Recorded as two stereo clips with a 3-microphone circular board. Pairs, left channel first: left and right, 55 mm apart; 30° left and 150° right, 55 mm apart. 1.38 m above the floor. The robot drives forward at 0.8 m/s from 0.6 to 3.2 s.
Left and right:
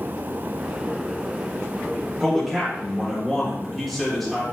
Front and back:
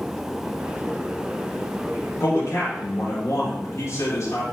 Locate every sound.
2.2 s a man speaking: straight ahead, 6 m